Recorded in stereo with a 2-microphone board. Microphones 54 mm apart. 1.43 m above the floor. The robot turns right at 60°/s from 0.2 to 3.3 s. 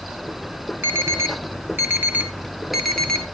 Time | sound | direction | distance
0.8 | an alarm | 45° right (ahead or behind) | 1.2 m